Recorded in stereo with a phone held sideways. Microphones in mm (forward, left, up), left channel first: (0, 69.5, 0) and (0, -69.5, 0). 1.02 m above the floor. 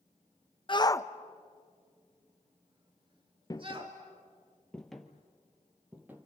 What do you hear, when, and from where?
0.7 s a shout: 40° left (ahead or behind), 0.7 m; by 4.0 s 40° right (ahead or behind), 2 m
3.5 s footsteps: 30° left (ahead or behind), 1.1 m; by 6.3 s 15° right (ahead or behind), 1.8 m